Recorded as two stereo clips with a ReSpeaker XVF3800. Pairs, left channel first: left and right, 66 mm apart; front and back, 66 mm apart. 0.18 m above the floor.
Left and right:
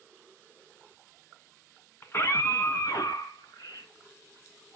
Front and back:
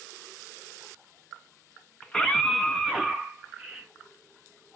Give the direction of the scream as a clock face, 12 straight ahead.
10 o'clock.